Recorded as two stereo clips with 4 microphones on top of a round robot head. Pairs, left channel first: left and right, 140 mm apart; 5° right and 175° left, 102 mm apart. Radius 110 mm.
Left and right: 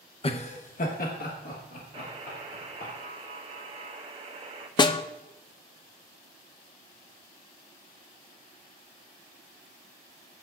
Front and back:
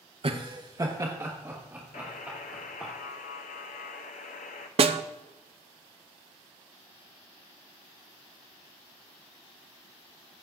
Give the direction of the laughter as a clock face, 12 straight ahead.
7 o'clock.